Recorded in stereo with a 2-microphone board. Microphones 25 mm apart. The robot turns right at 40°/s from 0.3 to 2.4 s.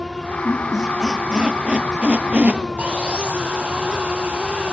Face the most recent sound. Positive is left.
turn(degrees=-50)  # may be behind; listen again after turning